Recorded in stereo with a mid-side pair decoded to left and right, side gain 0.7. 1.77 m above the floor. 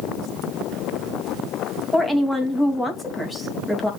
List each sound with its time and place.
1.9 s a woman speaking: 5° left, 3 m